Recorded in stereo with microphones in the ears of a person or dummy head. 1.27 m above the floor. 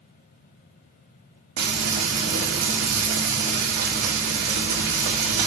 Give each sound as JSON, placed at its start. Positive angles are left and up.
{"t": 1.6, "sound": "frying", "side_deg": -60, "distance_m": 1.4}